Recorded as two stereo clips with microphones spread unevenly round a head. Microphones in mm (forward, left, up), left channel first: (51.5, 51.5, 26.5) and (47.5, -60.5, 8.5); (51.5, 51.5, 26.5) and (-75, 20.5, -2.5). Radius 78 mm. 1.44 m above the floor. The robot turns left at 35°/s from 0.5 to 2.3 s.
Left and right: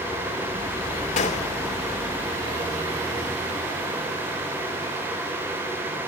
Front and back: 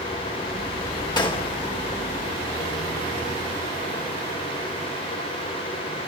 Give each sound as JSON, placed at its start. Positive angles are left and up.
{"t": 1.2, "sound": "a gunshot", "azimuth_deg": 70, "distance_m": 3.0}